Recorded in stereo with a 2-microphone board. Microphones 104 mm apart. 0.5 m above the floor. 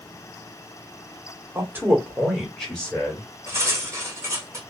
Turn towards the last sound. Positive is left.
turn(degrees=-30)  # may be behind; listen again after turning